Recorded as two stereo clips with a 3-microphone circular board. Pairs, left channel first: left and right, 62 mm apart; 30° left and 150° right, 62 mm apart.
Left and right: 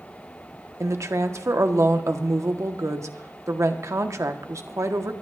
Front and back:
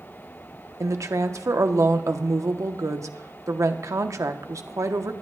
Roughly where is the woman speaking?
Behind right.